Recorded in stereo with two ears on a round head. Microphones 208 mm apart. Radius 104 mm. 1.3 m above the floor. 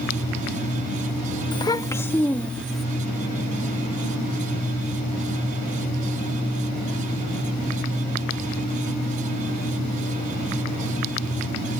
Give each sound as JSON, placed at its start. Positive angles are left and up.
{"t": 1.5, "sound": "a child speaking", "side_deg": 20}